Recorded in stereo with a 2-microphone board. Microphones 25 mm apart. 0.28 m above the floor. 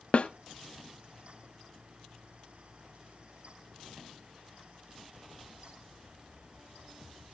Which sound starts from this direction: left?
A snare drum, at 0.1 s.